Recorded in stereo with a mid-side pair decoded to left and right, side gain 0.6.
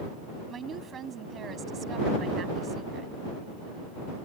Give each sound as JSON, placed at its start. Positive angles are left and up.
{"t": 0.5, "sound": "a woman speaking", "azimuth_deg": -40}